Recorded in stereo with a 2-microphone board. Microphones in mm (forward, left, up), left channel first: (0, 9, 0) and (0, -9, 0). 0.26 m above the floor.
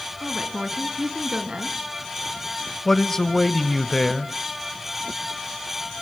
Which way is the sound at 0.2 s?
55° right (ahead or behind).